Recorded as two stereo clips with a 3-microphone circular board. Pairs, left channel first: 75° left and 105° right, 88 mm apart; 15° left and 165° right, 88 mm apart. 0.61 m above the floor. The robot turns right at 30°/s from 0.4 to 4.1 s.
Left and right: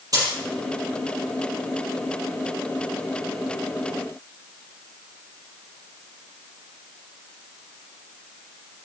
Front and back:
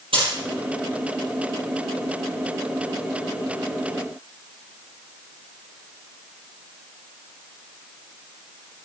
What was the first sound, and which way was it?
A dropped coin, 150° right.